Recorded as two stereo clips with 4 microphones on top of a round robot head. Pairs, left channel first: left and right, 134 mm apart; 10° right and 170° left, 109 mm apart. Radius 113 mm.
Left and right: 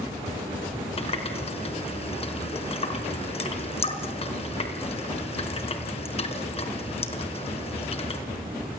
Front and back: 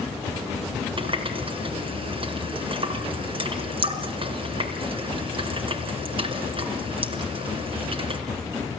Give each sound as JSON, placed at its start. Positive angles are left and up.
{"t": 1.0, "sound": "a running tap", "azimuth_deg": 135, "distance_m": 4.0}